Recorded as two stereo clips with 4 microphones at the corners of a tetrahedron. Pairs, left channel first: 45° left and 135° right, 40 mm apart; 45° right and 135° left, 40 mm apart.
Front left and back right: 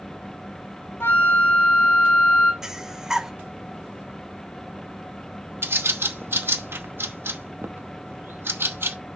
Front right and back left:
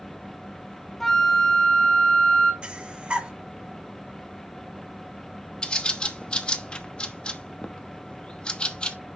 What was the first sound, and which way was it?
A flute, 40° left.